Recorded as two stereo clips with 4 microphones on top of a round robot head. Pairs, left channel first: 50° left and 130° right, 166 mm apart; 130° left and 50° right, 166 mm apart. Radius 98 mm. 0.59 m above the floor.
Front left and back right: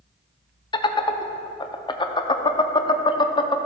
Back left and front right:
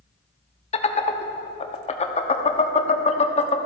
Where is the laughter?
100° left, 0.8 m.